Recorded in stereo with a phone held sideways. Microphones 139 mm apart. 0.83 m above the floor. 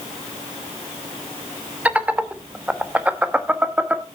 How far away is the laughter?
About 1.0 m.